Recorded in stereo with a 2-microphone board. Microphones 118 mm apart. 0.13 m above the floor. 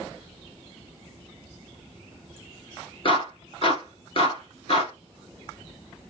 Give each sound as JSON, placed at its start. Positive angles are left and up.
{"t": 3.0, "sound": "a clap", "side_deg": 50, "distance_m": 2.0}